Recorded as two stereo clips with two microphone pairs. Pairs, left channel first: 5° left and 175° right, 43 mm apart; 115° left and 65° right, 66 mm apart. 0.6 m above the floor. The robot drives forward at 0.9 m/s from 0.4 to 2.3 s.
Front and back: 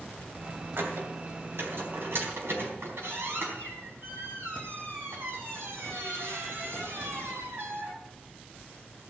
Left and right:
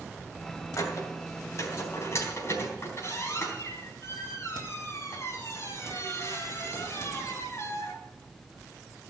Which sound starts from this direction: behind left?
A squeak, at 0.8 s.